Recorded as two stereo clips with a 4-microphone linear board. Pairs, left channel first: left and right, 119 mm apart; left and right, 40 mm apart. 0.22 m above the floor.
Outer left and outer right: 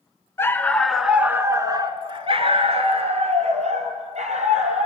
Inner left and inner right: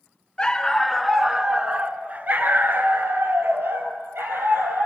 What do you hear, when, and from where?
0.4 s a dog barking: 25° left (ahead or behind), 1.2 m; by 4.9 s 80° right, 3.5 m